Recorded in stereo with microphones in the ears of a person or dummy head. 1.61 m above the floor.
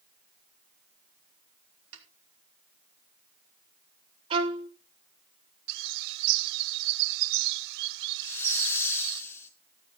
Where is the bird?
60° right (ahead or behind), 0.7 m.